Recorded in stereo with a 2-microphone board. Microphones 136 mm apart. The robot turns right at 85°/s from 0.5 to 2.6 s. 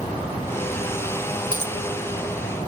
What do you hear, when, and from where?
1.5 s a dropped coin: 65° left (ahead or behind), 1.3 m; by 1.8 s 45° left (ahead or behind), 1.3 m